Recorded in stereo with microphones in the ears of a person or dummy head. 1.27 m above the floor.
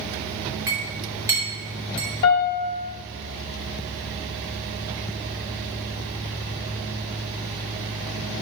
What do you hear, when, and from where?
0.7 s a clink: 15° right (ahead or behind), 3 m
2.2 s a piano: 20° left (ahead or behind), 1.0 m